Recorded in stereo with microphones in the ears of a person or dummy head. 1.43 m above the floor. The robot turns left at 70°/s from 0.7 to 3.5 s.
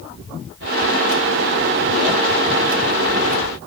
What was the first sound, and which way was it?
Only background noise.